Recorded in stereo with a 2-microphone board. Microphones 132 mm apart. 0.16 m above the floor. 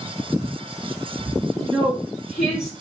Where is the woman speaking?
Centre (ahead or behind), 2.0 m.